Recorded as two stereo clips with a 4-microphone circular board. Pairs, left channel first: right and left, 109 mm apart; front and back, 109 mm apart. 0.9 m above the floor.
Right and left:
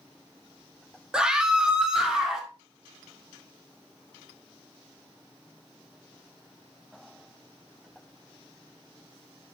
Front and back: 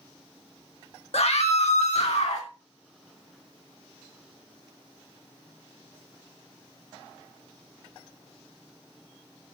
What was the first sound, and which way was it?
A scream, 5° left.